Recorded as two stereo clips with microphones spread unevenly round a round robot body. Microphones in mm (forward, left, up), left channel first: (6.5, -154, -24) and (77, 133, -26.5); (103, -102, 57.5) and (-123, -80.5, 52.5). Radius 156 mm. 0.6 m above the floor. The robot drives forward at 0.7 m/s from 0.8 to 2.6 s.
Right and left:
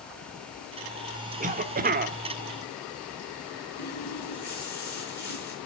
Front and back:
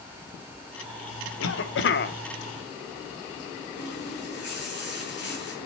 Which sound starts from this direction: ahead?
A cough, at 1.4 s.